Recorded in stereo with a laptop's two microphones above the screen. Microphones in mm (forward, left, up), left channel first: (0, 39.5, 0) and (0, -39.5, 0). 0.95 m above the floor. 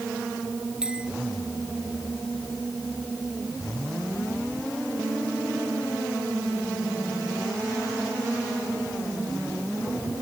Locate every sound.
0.8 s a bell: 10° right (ahead or behind)